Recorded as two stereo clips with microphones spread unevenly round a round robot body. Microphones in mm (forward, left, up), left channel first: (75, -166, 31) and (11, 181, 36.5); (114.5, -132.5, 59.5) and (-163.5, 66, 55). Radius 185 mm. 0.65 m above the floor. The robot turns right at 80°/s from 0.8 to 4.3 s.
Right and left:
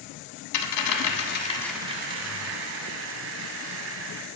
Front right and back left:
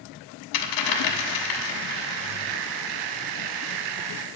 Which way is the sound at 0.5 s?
60° right.